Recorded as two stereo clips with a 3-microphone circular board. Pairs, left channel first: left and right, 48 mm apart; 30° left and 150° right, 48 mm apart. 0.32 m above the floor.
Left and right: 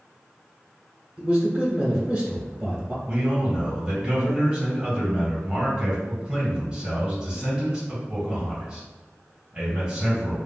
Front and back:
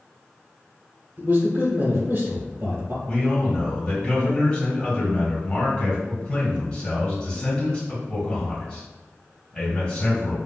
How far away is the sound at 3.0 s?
About 1.9 m.